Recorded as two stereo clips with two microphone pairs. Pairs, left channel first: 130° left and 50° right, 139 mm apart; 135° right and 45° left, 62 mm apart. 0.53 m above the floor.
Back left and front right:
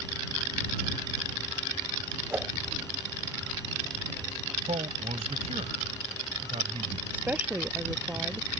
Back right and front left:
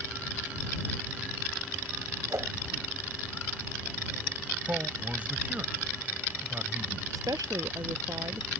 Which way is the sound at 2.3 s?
20° left.